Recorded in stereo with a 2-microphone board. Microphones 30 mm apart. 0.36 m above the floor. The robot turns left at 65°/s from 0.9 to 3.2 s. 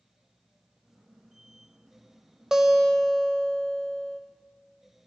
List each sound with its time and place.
2.5 s a guitar: 155° right, 0.8 m; by 4.2 s 160° left, 0.8 m